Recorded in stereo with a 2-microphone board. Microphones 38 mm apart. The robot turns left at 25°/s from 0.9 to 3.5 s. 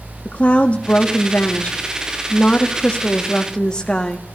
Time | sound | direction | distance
0.2 | a woman speaking | 105° left | 0.9 m